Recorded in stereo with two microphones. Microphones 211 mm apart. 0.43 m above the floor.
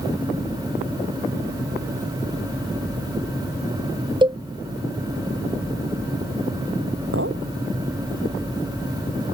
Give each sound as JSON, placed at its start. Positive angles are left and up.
{"t": 4.2, "sound": "a cowbell", "side_deg": -20}
{"t": 7.1, "sound": "a clink", "side_deg": -85}